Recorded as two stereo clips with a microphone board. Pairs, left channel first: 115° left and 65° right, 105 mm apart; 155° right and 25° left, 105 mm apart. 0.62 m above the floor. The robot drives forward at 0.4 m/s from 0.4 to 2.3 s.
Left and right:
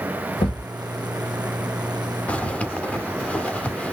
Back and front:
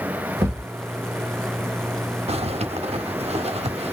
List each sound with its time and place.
0.4 s a thud: 75° left, 1.2 m; by 0.7 s 85° left, 1.1 m
2.3 s a zipper: 35° left, 0.6 m